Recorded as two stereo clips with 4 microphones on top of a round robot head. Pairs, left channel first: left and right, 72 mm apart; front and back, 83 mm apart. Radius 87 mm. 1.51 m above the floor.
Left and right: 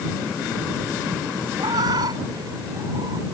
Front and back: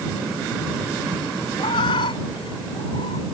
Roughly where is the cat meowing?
Ahead right.